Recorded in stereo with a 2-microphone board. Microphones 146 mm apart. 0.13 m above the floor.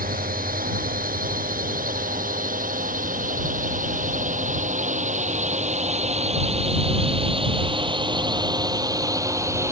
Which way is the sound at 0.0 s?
75° right (ahead or behind).